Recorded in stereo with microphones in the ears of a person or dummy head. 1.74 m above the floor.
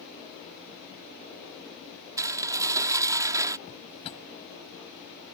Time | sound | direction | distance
2.2 | dishes clattering | 15° right (ahead or behind) | ?
3.7 | a drawer | 30° left (ahead or behind) | ?